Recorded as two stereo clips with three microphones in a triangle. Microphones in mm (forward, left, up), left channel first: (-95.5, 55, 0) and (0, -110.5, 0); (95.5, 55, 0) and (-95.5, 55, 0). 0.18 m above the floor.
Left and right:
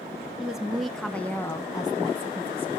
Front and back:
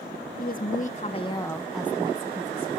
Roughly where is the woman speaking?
Ahead left.